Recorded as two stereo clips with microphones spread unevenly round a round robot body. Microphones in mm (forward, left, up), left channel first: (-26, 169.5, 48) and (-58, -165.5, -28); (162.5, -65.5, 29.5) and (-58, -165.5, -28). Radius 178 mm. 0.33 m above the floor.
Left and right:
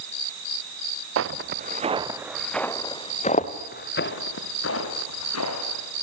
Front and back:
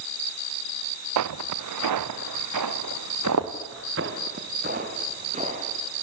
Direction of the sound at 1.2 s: 150° right.